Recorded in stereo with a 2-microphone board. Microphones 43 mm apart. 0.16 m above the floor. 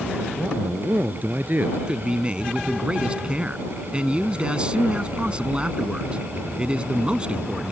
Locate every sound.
0.4 s a man speaking: 45° right (ahead or behind)
1.9 s a man speaking: 25° right (ahead or behind)